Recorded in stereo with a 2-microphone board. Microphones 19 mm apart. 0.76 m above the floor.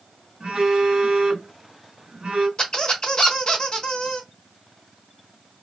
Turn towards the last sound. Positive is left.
turn(degrees=45)  # may be behind; listen again after turning